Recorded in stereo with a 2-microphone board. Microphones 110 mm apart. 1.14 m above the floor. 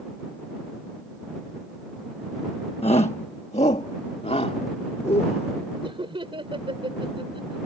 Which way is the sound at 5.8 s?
55° right (ahead or behind).